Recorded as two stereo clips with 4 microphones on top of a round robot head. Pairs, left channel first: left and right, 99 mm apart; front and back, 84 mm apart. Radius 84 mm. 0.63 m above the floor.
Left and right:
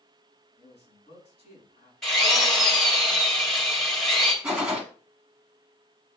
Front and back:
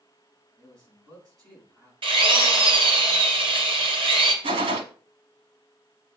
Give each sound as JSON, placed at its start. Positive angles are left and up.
{"t": 0.6, "sound": "a man speaking", "azimuth_deg": 140, "distance_m": 4.5}
{"t": 2.0, "sound": "a drill", "azimuth_deg": 175, "distance_m": 2.5}
{"t": 4.4, "sound": "a gunshot", "azimuth_deg": -170, "distance_m": 0.7}